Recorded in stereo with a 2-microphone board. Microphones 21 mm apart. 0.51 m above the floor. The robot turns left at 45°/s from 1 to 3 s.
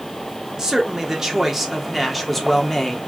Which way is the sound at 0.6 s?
135° right.